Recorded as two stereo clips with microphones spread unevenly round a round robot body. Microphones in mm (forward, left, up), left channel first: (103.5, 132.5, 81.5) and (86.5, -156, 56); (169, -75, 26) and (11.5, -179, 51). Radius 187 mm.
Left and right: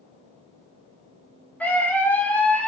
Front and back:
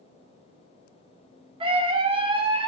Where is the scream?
175° left, 0.6 m.